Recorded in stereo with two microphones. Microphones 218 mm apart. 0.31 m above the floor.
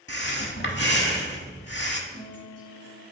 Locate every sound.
0.1 s breathing: 50° left (ahead or behind), 0.8 m
2.1 s a guitar: 35° right (ahead or behind), 3 m